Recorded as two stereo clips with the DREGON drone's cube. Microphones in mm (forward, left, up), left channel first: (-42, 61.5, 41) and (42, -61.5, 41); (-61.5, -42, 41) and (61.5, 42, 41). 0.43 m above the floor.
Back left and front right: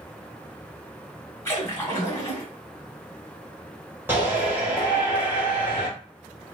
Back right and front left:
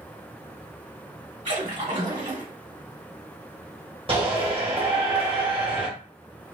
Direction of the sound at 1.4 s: 55° left.